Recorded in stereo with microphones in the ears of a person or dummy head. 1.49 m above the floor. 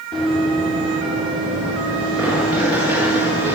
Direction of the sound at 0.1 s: 5° left (ahead or behind).